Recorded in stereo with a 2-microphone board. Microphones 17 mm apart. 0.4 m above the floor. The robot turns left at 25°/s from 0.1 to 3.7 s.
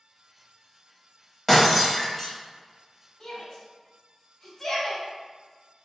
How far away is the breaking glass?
About 1.3 m.